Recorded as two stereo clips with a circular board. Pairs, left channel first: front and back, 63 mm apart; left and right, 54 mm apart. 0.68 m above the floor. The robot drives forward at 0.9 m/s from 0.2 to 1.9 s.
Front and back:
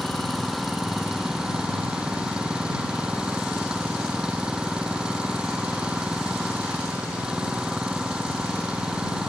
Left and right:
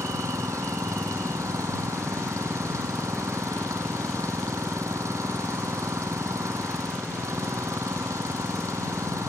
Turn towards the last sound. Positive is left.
turn(degrees=-105)